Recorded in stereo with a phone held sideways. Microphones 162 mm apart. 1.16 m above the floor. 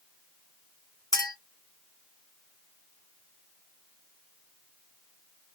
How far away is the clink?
About 1.0 m.